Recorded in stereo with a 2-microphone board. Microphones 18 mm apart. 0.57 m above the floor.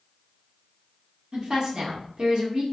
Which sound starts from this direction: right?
A woman speaking, at 1.3 s.